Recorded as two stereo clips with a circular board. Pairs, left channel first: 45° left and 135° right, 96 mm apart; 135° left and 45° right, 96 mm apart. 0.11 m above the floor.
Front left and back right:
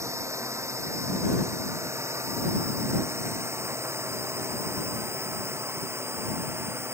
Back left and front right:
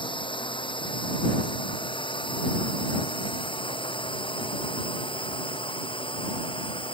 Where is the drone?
165° left; by 7.0 s 160° left.